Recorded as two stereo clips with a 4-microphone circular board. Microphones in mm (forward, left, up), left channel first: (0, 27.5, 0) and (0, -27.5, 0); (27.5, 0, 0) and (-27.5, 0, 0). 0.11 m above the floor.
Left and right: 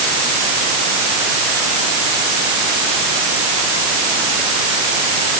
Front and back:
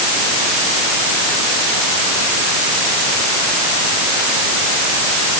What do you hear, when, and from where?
Only background noise.